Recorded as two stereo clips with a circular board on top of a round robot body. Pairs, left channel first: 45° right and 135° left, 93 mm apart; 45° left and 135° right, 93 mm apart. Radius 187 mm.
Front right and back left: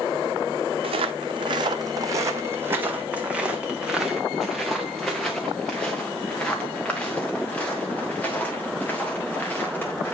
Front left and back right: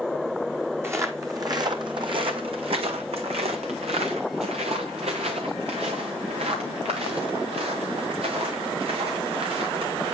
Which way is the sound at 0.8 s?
160° left.